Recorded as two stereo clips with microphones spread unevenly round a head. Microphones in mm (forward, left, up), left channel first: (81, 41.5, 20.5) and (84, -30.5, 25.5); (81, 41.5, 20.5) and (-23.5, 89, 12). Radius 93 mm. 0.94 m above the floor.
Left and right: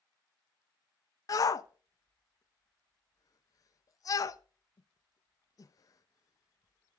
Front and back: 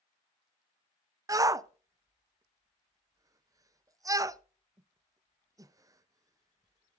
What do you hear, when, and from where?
1.3 s a shout: 105° left, 0.7 m